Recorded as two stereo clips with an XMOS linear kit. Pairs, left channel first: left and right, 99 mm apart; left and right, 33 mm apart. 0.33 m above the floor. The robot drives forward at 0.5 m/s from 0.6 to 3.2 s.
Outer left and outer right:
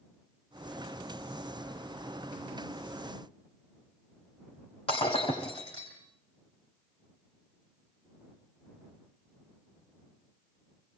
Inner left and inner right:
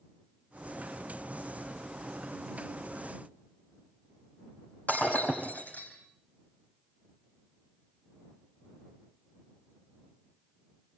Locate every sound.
4.9 s breaking glass: 80° left, 5.5 m